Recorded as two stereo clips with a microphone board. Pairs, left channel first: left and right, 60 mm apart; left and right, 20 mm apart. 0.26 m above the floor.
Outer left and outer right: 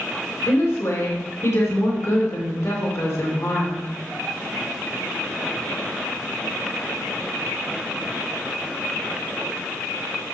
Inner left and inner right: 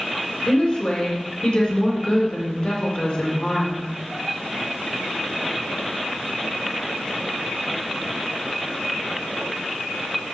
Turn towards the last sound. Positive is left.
turn(degrees=55)  # may be behind; listen again after turning